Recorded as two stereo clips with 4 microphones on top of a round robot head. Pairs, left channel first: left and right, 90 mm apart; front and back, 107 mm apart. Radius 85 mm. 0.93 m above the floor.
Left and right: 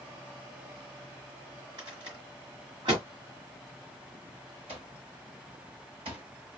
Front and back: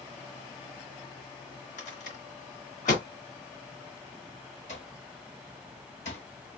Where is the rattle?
30° right, 2 m.